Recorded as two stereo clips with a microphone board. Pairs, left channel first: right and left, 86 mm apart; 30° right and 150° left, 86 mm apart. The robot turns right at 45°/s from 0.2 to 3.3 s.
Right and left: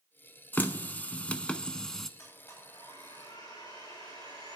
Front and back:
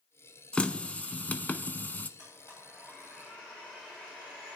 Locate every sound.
0.5 s a running tap: 80° right, 0.7 m; by 2.1 s 10° right, 0.7 m
2.2 s a blender: 145° right, 8.5 m; by 4.6 s 95° right, 8.5 m